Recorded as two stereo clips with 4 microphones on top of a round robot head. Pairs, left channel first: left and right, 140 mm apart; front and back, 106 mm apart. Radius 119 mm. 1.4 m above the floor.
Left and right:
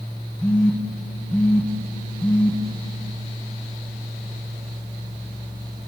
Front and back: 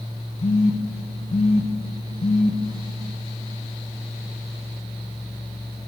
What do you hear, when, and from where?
0.4 s a phone buzzing: 10° left, 0.6 m